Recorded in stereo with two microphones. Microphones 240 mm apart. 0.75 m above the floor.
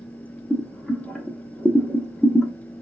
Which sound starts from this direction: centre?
Boiling, at 0.5 s.